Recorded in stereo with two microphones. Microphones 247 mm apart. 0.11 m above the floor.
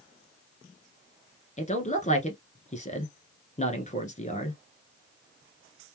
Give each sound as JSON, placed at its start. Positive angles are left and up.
{"t": 1.6, "sound": "a man speaking", "side_deg": 30, "distance_m": 1.3}